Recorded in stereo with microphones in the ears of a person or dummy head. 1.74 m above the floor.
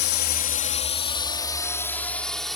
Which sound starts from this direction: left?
A drone, at 0.0 s.